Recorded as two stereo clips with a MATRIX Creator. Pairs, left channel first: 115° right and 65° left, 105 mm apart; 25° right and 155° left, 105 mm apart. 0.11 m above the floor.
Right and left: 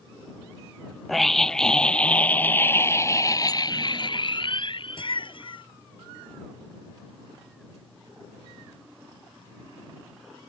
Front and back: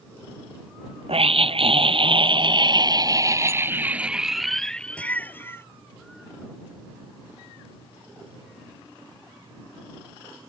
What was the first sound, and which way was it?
A scream, 160° left.